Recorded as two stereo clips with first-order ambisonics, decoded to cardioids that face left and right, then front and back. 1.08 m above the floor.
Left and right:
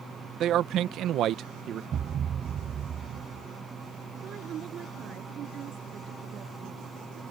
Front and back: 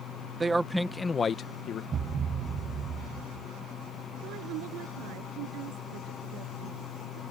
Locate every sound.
0.4 s a man speaking: 115° right; by 1.8 s 40° right
1.9 s a thud: 135° right
4.2 s a woman speaking: 150° right